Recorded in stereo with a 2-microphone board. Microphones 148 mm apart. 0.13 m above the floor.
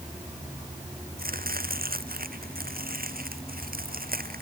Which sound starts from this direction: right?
Chopping, at 1.2 s.